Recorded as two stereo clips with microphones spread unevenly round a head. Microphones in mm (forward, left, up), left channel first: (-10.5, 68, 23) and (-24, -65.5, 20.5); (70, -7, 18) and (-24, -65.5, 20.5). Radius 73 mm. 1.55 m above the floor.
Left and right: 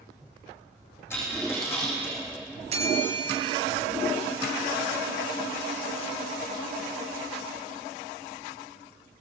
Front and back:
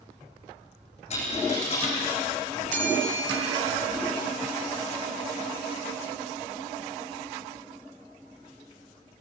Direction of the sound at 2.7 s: 145° right.